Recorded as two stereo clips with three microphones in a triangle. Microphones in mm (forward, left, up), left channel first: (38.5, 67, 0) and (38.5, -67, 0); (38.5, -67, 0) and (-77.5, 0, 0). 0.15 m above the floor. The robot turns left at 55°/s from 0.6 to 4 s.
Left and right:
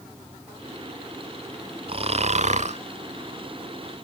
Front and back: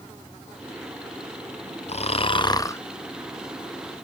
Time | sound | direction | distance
1.9 | snoring | 50° right | 0.6 m